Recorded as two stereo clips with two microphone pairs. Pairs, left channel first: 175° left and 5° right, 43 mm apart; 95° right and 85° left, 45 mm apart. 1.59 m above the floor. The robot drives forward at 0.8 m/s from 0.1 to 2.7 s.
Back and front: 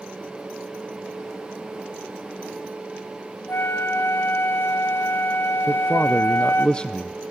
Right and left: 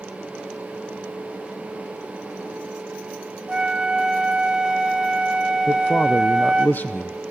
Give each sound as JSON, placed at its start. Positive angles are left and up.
{"t": 3.5, "sound": "a flute", "azimuth_deg": 155, "distance_m": 1.6}
{"t": 5.7, "sound": "a man speaking", "azimuth_deg": -125, "distance_m": 0.6}